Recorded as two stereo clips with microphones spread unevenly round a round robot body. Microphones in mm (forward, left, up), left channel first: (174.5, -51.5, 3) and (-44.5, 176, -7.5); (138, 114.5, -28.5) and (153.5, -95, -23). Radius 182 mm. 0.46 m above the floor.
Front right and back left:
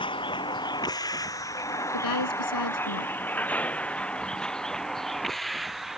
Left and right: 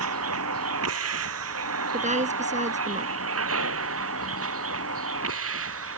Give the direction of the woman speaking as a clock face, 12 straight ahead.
1 o'clock.